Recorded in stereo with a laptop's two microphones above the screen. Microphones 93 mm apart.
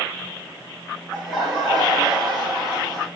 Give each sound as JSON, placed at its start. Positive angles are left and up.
{"t": 1.1, "sound": "laughter", "side_deg": 0, "distance_m": 1.6}